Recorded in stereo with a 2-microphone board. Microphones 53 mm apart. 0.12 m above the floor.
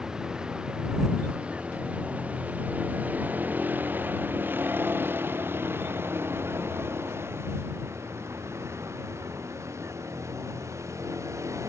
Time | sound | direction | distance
0.0 | a vehicle | 15° right (ahead or behind) | ?